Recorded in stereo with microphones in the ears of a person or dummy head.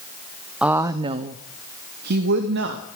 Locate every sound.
0.6 s a woman speaking: 5° right (ahead or behind), 0.6 m; by 2.9 s 65° right (ahead or behind), 1.5 m